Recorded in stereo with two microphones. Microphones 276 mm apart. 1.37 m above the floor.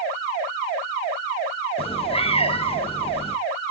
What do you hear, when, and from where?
1.8 s a cat meowing: 20° left (ahead or behind), 0.6 m